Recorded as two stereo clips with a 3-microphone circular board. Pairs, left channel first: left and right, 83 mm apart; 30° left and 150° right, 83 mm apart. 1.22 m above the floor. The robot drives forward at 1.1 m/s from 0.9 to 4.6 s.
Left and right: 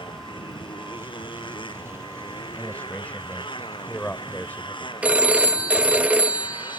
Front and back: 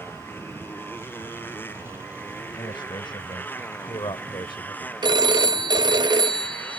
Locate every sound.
0.0 s a motorcycle: 95° left; by 6.8 s 100° left
2.5 s a man speaking: 15° left; by 4.9 s 25° left
5.0 s a phone ringing: 160° right